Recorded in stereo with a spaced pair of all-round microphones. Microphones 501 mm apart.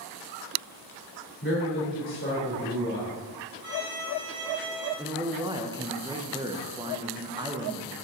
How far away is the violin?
About 3 m.